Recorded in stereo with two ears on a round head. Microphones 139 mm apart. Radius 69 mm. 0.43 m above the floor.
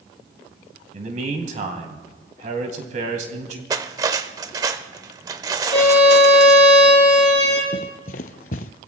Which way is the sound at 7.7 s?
55° left (ahead or behind).